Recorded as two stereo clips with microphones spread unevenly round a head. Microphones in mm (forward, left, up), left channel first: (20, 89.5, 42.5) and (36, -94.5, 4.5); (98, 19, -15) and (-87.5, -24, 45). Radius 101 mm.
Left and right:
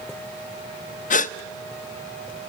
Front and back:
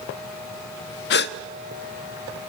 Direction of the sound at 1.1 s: 50° left.